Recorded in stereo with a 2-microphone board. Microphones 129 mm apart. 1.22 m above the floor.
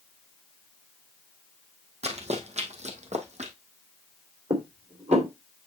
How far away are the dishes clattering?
About 3 m.